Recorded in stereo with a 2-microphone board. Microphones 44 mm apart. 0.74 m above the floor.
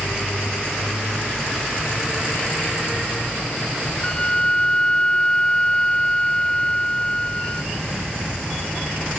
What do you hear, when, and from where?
4.0 s a flute: 25° left (ahead or behind)